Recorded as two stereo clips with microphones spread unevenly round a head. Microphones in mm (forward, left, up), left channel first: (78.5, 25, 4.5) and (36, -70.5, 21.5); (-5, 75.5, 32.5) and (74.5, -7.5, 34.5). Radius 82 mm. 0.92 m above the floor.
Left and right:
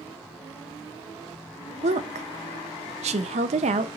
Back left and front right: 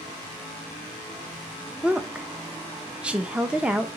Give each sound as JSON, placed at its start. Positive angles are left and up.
{"t": 1.8, "sound": "a woman speaking", "azimuth_deg": -130, "distance_m": 0.6}